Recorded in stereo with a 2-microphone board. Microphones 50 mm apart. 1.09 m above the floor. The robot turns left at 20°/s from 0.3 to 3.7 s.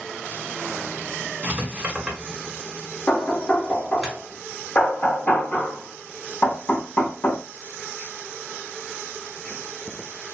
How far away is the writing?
About 1.8 m.